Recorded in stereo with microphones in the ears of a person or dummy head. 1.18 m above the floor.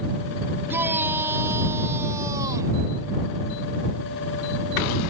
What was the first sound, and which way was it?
A shout, 10° right (ahead or behind).